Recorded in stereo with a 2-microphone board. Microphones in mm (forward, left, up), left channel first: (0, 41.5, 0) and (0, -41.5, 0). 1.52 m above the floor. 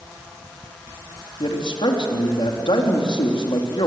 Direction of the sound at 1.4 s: 85° left.